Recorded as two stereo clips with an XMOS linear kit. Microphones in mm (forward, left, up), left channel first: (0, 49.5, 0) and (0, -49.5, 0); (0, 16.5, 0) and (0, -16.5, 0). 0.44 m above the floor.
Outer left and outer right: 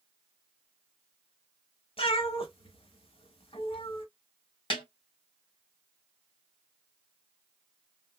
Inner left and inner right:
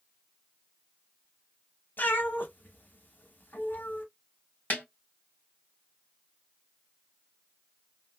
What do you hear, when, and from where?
2.0 s a cat meowing: 75° left (ahead or behind), 1.1 m
4.7 s a snare drum: 60° left (ahead or behind), 1.9 m